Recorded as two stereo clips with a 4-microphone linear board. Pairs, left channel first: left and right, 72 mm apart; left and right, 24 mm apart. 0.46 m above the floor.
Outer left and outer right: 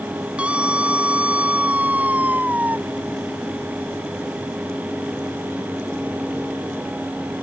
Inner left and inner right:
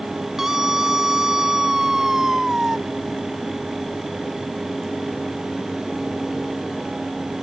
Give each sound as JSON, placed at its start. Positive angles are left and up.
{"t": 0.4, "sound": "a scream", "side_deg": -15}